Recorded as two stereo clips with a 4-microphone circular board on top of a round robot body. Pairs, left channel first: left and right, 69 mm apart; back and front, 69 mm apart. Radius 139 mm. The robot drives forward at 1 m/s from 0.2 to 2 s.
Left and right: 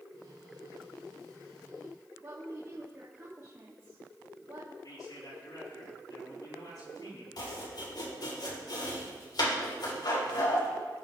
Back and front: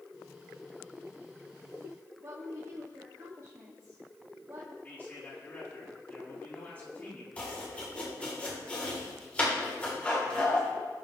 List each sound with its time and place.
2.2 s a woman speaking: 40° right, 2.5 m
4.8 s a man speaking: 115° left, 7 m
7.4 s chopping: 110° left, 4 m